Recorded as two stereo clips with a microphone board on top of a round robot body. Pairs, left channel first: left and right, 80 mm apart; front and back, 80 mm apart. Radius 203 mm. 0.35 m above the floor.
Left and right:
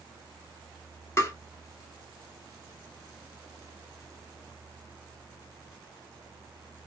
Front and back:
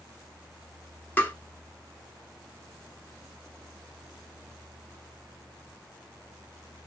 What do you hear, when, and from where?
1.2 s tapping: 55° left, 1.6 m